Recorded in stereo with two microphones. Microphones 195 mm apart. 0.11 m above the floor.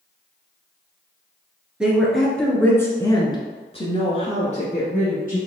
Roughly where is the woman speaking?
Centre.